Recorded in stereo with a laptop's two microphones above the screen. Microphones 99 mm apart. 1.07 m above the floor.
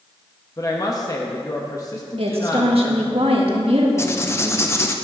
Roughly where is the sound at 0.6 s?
Left.